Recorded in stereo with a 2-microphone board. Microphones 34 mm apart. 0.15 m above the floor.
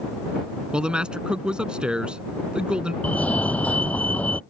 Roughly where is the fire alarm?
Left.